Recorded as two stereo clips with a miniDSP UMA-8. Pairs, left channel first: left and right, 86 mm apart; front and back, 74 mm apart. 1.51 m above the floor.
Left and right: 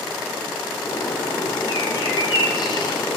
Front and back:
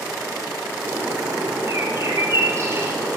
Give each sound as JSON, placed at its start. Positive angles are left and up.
{"t": 0.8, "sound": "a bird", "azimuth_deg": 125, "distance_m": 5.0}